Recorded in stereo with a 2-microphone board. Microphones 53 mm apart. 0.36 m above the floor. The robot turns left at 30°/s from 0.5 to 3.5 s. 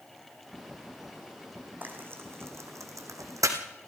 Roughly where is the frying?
Right.